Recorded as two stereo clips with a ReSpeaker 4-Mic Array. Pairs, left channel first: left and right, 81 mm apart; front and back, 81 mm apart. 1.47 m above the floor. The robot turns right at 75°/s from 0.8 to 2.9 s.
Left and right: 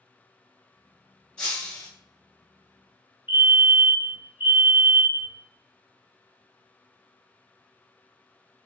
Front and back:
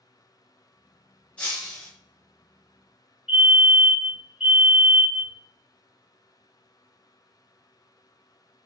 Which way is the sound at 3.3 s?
110° right.